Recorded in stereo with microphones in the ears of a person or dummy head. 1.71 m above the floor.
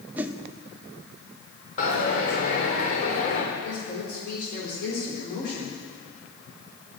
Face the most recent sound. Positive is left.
turn(degrees=60)  # may be behind; listen again after turning